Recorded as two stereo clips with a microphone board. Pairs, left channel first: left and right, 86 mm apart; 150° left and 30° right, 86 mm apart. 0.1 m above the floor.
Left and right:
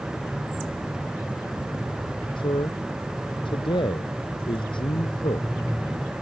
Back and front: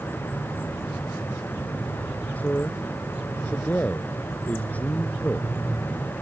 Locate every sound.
2.4 s a man speaking: 80° left